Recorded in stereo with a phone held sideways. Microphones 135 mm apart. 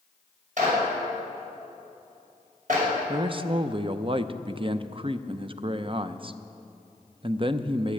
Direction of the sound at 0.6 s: 65° right (ahead or behind).